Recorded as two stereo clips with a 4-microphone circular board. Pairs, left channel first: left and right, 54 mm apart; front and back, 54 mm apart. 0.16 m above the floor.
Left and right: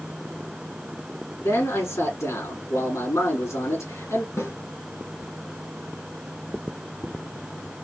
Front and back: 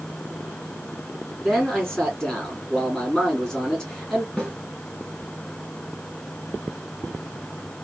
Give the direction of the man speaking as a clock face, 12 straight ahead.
9 o'clock.